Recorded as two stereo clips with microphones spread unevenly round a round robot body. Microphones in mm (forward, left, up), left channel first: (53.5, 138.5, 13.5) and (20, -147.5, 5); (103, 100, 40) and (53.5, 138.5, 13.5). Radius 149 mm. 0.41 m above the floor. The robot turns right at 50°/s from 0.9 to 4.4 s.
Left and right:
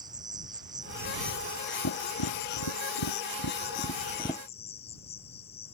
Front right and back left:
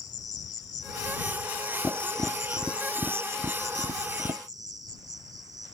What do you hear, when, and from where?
0.0 s an insect: 20° right; by 5.8 s 155° left
1.8 s tapping: 40° left; by 4.4 s 165° left